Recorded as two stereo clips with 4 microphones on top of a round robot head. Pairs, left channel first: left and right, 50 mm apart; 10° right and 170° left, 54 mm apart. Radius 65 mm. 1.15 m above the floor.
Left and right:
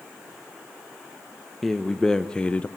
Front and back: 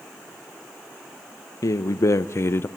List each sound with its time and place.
1.6 s a man speaking: 5° left, 1.1 m; by 2.7 s 30° left, 0.6 m